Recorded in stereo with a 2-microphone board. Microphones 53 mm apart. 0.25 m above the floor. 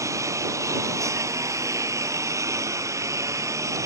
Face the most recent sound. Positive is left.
turn(degrees=-75)  # may be behind; listen again after turning